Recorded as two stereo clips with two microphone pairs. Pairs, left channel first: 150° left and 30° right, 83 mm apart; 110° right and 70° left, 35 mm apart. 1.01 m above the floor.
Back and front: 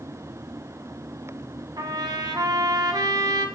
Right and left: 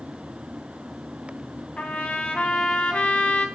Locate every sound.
1.8 s a trumpet: 65° right, 2 m